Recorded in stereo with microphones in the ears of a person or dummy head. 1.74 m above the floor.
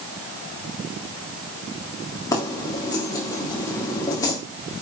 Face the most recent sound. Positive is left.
turn(degrees=20)  # may be behind; listen again after turning